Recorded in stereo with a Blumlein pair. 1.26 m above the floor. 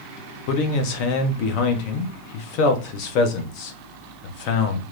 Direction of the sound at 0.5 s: 45° left.